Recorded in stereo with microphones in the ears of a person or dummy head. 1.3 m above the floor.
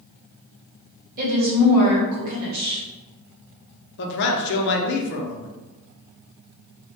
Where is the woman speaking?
50° right (ahead or behind), 1.1 m.